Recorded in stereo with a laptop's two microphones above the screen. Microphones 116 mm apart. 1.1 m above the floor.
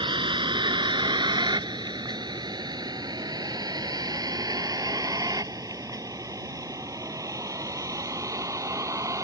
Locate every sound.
0.0 s a vehicle: 45° right (ahead or behind); by 9.2 s 25° right (ahead or behind)